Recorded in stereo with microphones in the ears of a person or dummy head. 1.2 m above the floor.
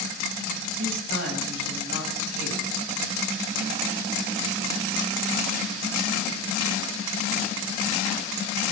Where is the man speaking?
65° right (ahead or behind), 7.5 m; by 2.6 s 70° right (ahead or behind), 7.5 m.